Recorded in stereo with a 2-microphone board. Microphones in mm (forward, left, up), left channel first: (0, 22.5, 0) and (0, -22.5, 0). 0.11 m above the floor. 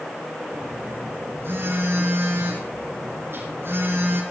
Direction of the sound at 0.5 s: 60° right (ahead or behind).